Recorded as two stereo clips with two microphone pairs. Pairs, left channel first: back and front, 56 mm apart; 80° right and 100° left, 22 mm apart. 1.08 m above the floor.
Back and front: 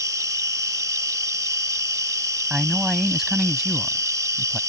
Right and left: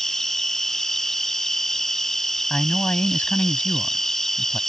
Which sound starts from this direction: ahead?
An insect, at 0.0 s.